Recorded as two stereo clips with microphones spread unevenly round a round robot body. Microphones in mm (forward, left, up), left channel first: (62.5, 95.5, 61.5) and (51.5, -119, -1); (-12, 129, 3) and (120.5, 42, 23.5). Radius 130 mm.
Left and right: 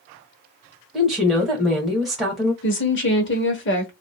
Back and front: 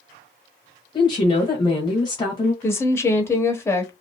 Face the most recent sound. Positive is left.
turn(degrees=95)